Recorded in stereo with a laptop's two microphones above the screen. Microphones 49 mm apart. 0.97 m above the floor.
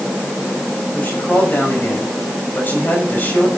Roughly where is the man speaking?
Left.